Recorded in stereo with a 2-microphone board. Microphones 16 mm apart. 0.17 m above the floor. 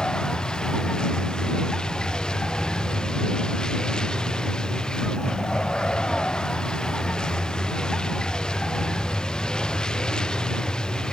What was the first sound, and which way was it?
A vehicle, 65° left (ahead or behind).